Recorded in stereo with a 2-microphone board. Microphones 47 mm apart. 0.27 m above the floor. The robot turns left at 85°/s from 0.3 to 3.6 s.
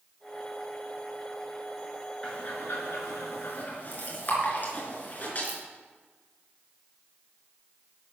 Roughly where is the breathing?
Left.